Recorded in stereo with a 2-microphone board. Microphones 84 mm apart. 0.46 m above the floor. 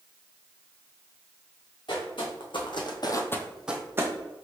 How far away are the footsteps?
About 2 m.